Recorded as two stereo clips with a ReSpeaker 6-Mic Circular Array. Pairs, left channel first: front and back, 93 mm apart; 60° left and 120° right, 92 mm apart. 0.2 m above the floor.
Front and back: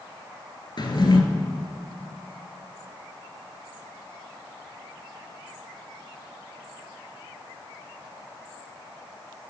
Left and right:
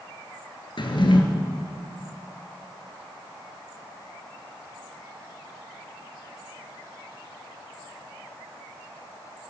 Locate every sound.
0.8 s a drawer: 35° left, 0.9 m